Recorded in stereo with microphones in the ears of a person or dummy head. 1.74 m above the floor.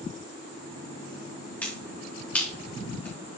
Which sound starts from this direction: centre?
A finger snap, at 1.6 s.